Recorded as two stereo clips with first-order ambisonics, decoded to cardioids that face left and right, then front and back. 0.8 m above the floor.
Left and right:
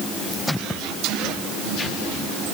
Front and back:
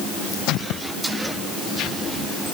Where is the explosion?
I don't hear an explosion.